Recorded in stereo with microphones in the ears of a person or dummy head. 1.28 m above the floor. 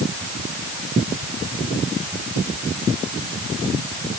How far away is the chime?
No chime in this recording.